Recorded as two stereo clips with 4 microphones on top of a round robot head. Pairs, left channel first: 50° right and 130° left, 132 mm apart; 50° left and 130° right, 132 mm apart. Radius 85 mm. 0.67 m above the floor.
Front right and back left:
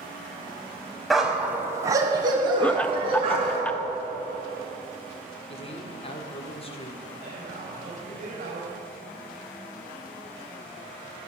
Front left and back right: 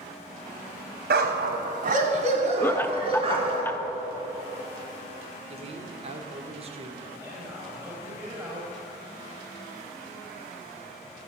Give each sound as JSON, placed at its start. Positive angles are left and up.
{"t": 1.1, "sound": "a dog barking", "azimuth_deg": -140, "distance_m": 1.7}
{"t": 2.6, "sound": "laughter", "azimuth_deg": 10, "distance_m": 0.8}
{"t": 5.5, "sound": "a man speaking", "azimuth_deg": -90, "distance_m": 2.0}
{"t": 7.2, "sound": "a man speaking", "azimuth_deg": 160, "distance_m": 5.0}